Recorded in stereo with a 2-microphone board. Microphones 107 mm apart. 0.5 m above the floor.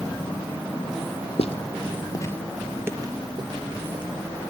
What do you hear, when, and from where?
1.4 s footsteps: 65° left (ahead or behind), 1.0 m; by 4.0 s 50° right (ahead or behind), 1.6 m